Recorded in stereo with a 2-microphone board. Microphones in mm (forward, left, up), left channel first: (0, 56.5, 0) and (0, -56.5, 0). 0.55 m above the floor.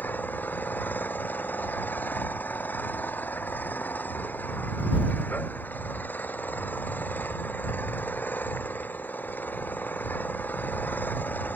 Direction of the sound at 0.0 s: 15° left (ahead or behind).